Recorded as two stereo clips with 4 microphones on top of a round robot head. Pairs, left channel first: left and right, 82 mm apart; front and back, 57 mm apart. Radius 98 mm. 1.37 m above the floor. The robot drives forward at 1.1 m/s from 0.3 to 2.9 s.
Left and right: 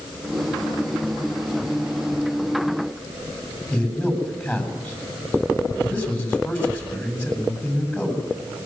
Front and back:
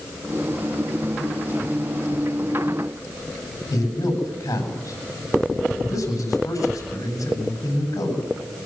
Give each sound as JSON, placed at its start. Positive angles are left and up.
{"t": 3.7, "sound": "a man speaking", "azimuth_deg": 25, "distance_m": 9.0}